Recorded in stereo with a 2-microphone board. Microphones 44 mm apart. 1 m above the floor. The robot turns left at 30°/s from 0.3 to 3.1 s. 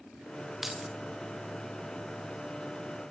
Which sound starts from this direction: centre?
Keys jangling, at 0.6 s.